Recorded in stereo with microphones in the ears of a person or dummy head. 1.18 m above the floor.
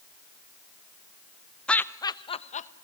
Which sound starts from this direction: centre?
Laughter, at 1.7 s.